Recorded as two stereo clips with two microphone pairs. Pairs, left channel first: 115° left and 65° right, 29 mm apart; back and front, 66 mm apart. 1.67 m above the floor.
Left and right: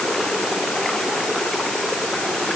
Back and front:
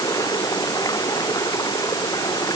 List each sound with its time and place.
0.0 s running water: 170° right